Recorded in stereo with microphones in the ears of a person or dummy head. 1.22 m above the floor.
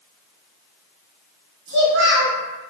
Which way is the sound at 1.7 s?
80° right.